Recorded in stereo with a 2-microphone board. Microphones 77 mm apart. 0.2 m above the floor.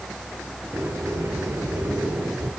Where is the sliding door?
30° right (ahead or behind), 3 m.